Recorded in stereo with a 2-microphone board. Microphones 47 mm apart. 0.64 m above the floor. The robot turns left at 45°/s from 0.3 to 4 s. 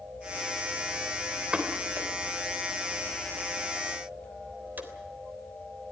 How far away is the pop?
About 3 m.